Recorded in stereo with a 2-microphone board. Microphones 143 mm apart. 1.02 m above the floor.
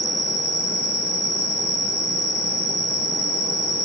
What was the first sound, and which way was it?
An insect, 70° left (ahead or behind).